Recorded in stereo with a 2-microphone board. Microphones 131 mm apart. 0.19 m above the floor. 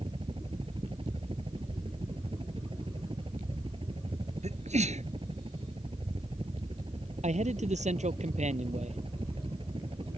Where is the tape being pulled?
No tape being pulled in this recording.